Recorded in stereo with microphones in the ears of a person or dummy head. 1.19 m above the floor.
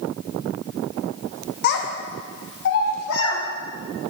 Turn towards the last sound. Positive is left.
turn(degrees=65)  # may be behind; listen again after turning